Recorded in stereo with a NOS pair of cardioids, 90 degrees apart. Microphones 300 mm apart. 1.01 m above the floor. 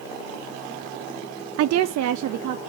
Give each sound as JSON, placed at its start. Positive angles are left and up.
{"t": 1.6, "sound": "a woman speaking", "azimuth_deg": -55, "distance_m": 0.5}